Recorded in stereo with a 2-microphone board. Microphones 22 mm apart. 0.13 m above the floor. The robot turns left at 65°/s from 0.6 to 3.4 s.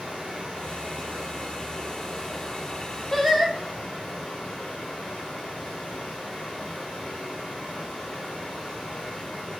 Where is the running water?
80° right, 2.5 m; by 9.6 s 100° left, 2.5 m.